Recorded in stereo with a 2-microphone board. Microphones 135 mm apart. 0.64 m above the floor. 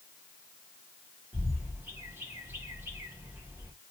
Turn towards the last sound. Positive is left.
turn(degrees=-15)  # may be behind; listen again after turning